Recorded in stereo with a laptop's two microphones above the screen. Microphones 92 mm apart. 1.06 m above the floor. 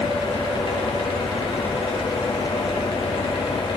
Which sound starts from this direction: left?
A fan, at 0.0 s.